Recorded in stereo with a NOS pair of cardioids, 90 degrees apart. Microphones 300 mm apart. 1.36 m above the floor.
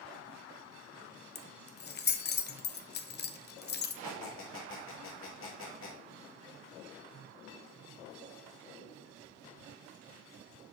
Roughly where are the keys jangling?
Ahead left.